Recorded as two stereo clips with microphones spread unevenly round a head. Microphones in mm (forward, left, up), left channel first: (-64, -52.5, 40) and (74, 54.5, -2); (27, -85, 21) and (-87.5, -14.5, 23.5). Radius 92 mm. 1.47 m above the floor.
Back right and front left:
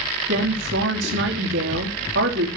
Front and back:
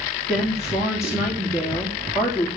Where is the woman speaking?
60° left, 3 m.